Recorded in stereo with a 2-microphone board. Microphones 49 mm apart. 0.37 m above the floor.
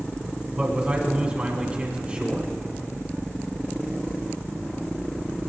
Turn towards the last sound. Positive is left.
turn(degrees=-30)  # may be behind; listen again after turning